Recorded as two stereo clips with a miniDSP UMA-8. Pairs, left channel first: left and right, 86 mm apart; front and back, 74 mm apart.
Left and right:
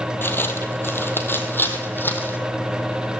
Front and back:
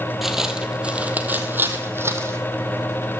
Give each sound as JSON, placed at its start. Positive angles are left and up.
{"t": 0.2, "sound": "footsteps", "azimuth_deg": 100, "distance_m": 1.7}